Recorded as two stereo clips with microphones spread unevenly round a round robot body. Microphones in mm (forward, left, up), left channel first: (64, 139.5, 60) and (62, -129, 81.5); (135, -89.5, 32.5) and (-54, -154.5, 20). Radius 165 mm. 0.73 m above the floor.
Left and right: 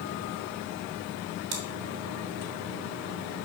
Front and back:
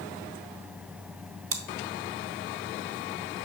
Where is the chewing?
145° right, 1.3 m.